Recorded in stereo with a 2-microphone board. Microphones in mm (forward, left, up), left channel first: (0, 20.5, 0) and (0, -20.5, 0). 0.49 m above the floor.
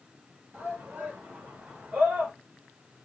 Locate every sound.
0.5 s a shout: 55° right (ahead or behind), 2 m; by 2.3 s 45° right (ahead or behind), 2.0 m